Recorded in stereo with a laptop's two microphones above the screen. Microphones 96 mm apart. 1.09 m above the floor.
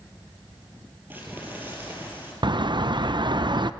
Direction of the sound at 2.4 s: 50° right (ahead or behind).